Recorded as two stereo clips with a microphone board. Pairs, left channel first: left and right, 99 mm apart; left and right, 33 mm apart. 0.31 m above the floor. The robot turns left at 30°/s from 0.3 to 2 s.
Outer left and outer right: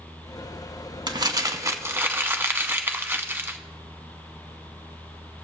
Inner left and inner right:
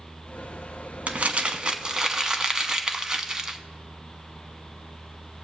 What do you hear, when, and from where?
1.1 s crumpling: 50° right (ahead or behind), 0.7 m; by 3.6 s 20° right (ahead or behind), 0.7 m